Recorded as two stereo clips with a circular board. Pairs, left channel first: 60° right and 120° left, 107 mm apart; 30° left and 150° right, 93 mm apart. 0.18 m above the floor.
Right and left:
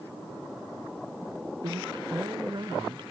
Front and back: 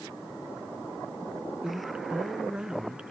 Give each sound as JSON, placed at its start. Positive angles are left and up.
{"t": 1.6, "sound": "a woman speaking", "azimuth_deg": 135, "distance_m": 2.0}